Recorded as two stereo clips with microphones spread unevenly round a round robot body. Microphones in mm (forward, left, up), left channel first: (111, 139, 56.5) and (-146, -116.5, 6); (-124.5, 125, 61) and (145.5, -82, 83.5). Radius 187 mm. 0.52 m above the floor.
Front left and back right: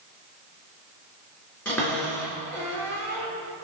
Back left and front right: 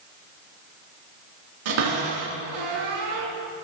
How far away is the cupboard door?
About 3.5 m.